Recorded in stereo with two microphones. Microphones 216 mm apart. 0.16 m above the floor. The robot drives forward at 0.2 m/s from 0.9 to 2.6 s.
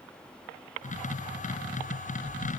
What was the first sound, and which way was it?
Only background noise.